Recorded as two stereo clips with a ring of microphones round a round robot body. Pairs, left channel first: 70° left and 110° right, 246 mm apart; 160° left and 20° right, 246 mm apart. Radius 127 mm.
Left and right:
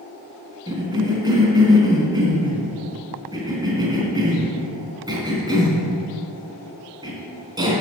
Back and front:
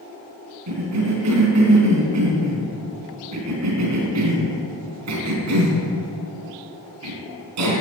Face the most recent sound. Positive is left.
turn(degrees=-40)